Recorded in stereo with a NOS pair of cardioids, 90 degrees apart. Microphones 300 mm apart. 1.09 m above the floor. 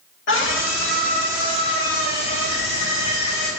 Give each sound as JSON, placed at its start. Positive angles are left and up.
{"t": 0.3, "sound": "a scream", "azimuth_deg": 40, "distance_m": 2.5}